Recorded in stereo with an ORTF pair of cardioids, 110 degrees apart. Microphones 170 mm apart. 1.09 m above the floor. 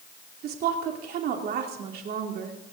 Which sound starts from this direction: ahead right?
A woman speaking, at 0.4 s.